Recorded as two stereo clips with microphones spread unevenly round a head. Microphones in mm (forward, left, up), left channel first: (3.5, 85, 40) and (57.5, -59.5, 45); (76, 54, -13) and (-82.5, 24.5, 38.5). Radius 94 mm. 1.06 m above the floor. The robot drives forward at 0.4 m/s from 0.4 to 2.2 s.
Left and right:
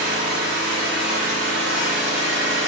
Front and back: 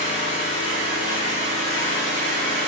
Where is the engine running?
55° right, 1.6 m; by 2.7 s 85° right, 1.4 m.